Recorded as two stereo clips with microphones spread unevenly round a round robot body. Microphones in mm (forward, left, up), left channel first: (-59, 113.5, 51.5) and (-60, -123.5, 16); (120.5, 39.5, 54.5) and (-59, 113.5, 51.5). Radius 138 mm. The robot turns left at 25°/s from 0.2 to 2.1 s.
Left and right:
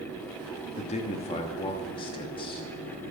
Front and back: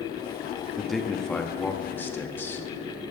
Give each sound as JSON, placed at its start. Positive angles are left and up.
{"t": 0.8, "sound": "a man speaking", "azimuth_deg": 70, "distance_m": 1.2}